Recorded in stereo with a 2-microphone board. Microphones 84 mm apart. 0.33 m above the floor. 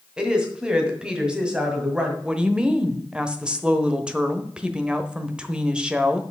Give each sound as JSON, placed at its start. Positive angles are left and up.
{"t": 0.2, "sound": "a woman speaking", "side_deg": -10, "distance_m": 1.8}
{"t": 2.2, "sound": "a woman speaking", "side_deg": -10, "distance_m": 1.0}